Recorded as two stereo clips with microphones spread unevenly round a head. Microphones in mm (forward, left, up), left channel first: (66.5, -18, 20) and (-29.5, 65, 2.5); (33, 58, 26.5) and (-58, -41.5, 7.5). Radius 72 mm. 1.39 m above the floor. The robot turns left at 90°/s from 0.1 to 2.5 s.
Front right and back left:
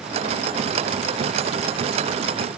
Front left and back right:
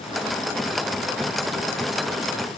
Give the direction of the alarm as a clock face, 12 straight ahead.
I don't hear an alarm.